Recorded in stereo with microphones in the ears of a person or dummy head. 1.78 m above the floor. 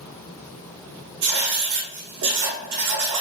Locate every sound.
1.2 s writing: 55° right (ahead or behind), 0.7 m